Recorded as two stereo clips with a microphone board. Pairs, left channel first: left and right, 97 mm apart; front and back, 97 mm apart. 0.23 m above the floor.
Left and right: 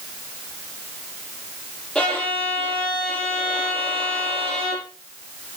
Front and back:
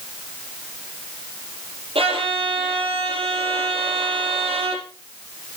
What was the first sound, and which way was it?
A violin, 170° left.